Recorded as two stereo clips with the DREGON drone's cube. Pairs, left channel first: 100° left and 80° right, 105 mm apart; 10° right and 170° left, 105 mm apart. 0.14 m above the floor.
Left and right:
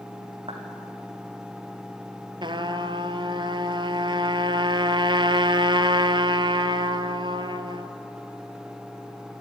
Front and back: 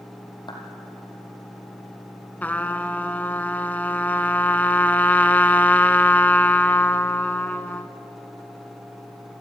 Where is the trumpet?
80° right, 1.0 m.